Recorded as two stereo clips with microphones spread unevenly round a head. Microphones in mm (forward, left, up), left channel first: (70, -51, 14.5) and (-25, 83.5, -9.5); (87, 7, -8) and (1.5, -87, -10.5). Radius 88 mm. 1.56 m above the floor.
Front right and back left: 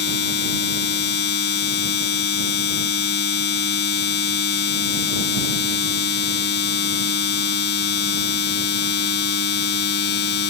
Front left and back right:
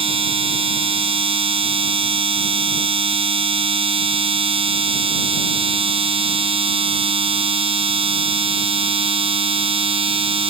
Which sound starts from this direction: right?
A machine running, at 0.0 s.